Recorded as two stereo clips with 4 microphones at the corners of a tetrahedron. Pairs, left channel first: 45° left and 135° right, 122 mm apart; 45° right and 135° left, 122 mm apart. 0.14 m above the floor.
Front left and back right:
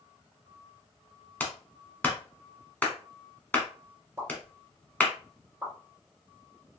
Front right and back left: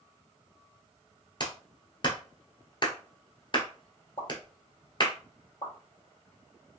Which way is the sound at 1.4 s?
25° right.